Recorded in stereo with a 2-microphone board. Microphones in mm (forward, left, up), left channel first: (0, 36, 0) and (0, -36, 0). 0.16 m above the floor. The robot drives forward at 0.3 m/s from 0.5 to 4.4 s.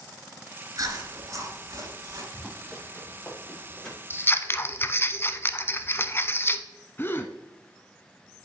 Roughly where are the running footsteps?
Centre.